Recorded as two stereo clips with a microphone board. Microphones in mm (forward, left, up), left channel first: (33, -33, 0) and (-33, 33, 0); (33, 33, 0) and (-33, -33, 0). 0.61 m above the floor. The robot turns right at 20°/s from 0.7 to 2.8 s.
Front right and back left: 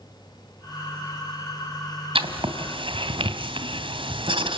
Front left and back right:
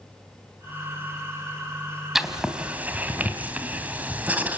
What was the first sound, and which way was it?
Writing, 140° left.